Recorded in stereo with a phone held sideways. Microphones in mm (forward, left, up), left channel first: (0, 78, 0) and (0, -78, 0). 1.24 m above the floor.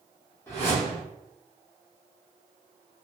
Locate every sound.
0.5 s a whoosh: 15° left (ahead or behind), 1.1 m